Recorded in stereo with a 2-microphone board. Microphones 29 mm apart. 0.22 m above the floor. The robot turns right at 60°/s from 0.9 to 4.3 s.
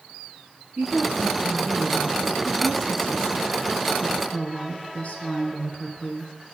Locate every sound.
0.8 s a woman speaking: 90° right, 2 m; by 6.3 s 115° left, 2 m